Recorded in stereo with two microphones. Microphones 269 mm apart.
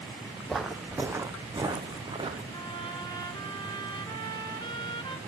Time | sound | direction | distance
0.5 | footsteps | centre (ahead or behind) | 0.9 m
2.5 | a trumpet | 15° left (ahead or behind) | 1.4 m